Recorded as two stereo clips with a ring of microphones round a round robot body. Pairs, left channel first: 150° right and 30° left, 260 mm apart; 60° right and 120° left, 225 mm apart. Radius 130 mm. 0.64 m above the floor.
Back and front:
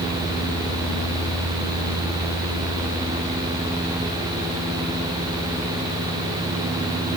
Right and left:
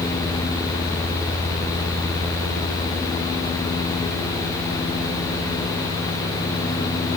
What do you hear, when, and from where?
Only background noise.